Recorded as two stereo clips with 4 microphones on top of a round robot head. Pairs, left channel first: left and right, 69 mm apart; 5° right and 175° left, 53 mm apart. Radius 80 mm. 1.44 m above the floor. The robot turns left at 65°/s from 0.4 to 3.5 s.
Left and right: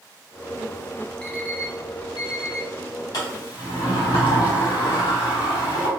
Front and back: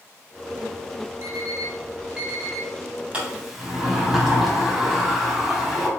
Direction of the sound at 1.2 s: 170° left.